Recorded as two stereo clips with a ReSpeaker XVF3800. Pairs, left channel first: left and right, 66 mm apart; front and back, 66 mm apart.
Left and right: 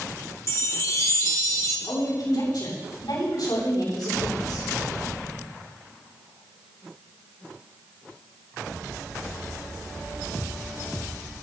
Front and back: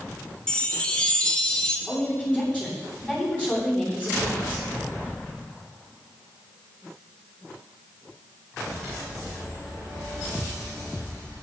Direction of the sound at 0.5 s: 70° left.